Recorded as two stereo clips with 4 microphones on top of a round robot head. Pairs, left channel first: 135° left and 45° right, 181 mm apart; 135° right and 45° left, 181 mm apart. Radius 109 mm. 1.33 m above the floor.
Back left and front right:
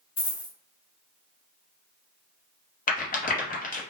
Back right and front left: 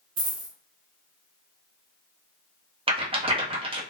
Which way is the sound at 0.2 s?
90° left.